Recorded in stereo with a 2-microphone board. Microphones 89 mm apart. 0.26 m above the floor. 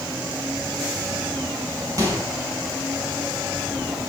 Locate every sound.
2.0 s a microwave: 35° right (ahead or behind), 5 m